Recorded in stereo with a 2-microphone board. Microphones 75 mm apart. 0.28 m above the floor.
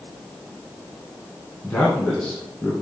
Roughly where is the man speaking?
Centre.